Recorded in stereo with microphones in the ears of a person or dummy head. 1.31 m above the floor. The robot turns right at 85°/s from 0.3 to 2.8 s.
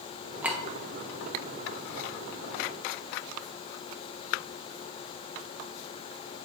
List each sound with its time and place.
0.4 s a clink: 5° right (ahead or behind), 0.5 m; by 0.6 s 10° left (ahead or behind), 0.5 m